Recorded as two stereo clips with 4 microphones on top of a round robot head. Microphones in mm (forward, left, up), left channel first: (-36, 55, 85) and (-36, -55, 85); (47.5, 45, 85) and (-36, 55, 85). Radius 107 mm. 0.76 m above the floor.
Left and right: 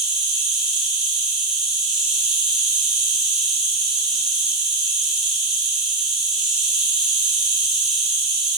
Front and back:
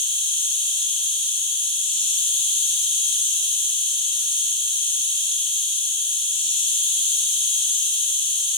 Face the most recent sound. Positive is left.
turn(degrees=-5)